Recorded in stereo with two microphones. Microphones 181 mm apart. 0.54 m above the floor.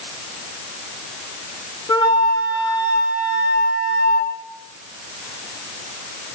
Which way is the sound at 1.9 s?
25° left (ahead or behind).